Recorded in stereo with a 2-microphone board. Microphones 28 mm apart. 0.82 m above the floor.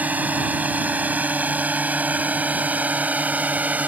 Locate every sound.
0.0 s a drone: 80° right; by 3.9 s 75° right (ahead or behind)